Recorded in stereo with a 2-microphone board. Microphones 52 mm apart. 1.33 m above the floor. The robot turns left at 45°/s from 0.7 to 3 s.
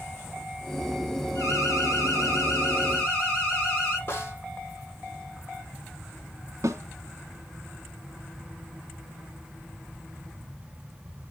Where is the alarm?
105° left, 8.5 m; by 4.0 s 30° left, 8.5 m.